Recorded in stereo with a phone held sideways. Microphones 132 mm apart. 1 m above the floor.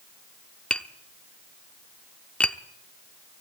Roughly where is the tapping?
Centre.